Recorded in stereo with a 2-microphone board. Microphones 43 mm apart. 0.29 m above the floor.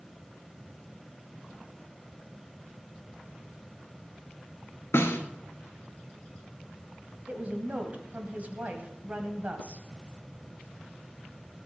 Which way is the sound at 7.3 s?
35° right (ahead or behind).